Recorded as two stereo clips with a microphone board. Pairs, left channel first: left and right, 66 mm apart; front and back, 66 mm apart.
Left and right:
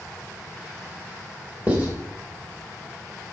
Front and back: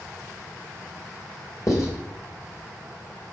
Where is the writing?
25° right, 3 m.